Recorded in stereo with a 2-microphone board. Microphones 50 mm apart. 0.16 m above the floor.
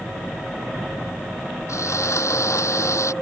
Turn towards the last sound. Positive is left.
turn(degrees=75)  # may be behind; listen again after turning